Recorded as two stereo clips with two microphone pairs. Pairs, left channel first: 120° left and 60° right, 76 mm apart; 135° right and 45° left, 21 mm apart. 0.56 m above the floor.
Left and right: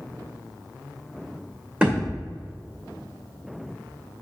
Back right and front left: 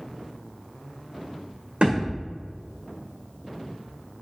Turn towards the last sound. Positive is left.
turn(degrees=15)